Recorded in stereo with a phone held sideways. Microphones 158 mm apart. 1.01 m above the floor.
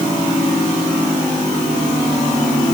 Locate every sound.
Only background noise.